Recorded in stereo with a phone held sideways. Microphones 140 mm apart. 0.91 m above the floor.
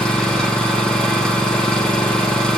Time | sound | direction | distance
0.0 | an engine running | 5° left (ahead or behind) | 3 m